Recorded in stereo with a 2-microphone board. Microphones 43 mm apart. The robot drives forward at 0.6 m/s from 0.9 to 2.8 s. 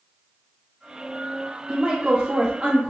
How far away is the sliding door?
I don't hear a sliding door.